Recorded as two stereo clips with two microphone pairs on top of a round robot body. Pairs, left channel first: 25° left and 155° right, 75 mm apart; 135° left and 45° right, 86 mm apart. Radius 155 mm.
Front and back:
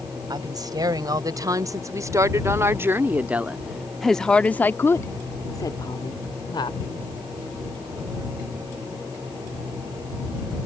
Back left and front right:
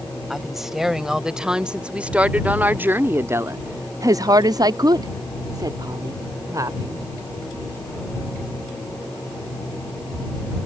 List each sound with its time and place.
0.3 s a woman speaking: 130° right; by 7.0 s 10° left